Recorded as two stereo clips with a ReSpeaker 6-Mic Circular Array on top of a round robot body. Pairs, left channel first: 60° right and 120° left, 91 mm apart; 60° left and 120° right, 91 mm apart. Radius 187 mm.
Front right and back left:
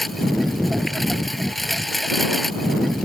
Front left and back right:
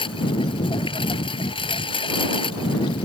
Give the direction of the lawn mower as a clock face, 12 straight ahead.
11 o'clock.